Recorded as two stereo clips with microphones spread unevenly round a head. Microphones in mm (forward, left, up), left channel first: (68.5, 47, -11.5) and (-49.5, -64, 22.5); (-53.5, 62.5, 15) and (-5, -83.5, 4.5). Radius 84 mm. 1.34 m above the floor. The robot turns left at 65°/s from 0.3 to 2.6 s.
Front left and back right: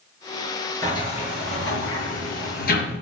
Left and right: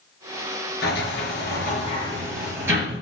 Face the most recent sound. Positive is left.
turn(degrees=5)